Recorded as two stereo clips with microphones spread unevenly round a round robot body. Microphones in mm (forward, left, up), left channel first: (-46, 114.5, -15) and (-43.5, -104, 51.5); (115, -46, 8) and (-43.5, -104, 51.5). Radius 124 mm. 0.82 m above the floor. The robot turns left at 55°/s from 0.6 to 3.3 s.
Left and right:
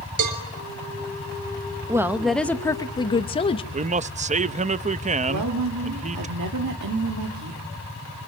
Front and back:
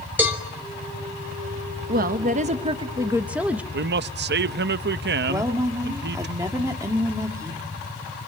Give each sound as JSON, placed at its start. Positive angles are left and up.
{"t": 0.2, "sound": "a cowbell", "azimuth_deg": -75, "distance_m": 3.5}
{"t": 1.9, "sound": "a woman speaking", "azimuth_deg": 180, "distance_m": 0.8}
{"t": 3.7, "sound": "a man speaking", "azimuth_deg": -155, "distance_m": 0.7}
{"t": 5.3, "sound": "a woman speaking", "azimuth_deg": -85, "distance_m": 2.0}